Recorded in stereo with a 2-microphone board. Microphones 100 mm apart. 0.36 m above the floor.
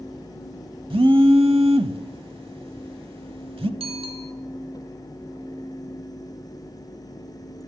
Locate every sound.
0.9 s a phone buzzing: 65° right (ahead or behind), 0.9 m
3.8 s a bicycle bell: 70° right (ahead or behind), 3 m